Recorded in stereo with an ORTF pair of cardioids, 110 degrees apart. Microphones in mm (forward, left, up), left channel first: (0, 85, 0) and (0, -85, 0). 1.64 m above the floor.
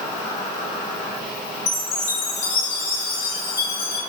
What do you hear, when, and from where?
0.0 s an insect: 40° left, 1.2 m
1.7 s a chime: 60° left, 1.2 m